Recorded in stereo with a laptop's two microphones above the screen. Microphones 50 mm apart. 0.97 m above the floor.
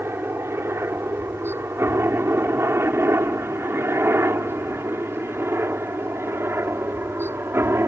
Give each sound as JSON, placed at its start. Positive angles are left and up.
{"t": 0.0, "sound": "a helicopter", "side_deg": -55}